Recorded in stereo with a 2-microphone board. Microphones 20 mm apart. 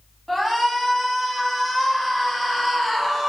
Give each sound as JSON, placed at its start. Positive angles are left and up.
{"t": 0.3, "sound": "a shout", "side_deg": 10, "distance_m": 1.5}